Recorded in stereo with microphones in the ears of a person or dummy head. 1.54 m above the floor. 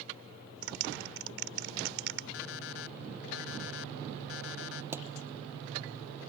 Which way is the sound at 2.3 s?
70° left (ahead or behind).